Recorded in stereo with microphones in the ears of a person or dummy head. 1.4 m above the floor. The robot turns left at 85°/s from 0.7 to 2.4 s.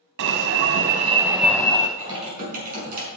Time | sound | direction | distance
0.2 | an alarm | 120° right | 1.0 m
2.0 | typing on a keyboard | 10° right | 5 m